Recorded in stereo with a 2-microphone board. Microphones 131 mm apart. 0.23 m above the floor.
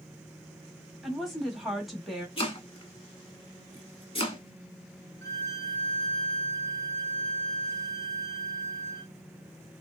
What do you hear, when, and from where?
1.0 s a woman speaking: centre (ahead or behind), 1.1 m
2.4 s chopping: 45° left (ahead or behind), 1.1 m
5.2 s a violin: 25° left (ahead or behind), 1.2 m